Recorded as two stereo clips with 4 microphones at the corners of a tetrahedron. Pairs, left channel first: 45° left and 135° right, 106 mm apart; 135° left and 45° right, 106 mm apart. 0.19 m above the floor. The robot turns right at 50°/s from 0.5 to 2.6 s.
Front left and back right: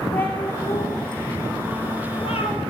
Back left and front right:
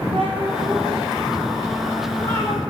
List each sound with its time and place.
0.1 s a cat meowing: 25° right, 3 m; by 2.6 s 80° left, 3 m